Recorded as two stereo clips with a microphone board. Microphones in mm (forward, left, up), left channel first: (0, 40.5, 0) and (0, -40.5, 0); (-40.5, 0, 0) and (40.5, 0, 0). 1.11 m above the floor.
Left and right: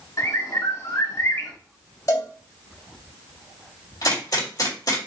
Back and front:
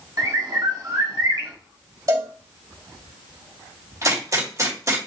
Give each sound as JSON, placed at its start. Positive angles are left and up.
{"t": 0.2, "sound": "a bird", "azimuth_deg": 45, "distance_m": 1.3}
{"t": 2.1, "sound": "a cowbell", "azimuth_deg": 45, "distance_m": 2.0}
{"t": 4.0, "sound": "a gunshot", "azimuth_deg": 50, "distance_m": 2.5}